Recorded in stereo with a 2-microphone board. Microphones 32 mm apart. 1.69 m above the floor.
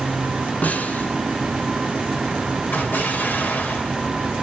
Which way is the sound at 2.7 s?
65° left (ahead or behind).